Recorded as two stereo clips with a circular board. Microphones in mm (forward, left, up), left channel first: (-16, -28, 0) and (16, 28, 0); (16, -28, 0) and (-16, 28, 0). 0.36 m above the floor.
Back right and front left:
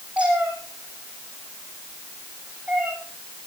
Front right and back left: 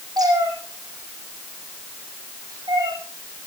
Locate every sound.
0.2 s a cat meowing: 130° left, 4.5 m